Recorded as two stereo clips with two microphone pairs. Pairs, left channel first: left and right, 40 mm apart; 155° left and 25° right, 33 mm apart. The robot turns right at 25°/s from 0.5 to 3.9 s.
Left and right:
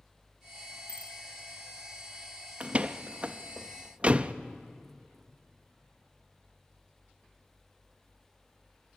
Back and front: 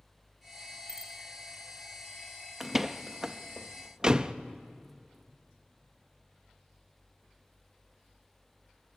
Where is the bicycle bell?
55° left, 3 m; by 1.1 s 60° left, 3 m.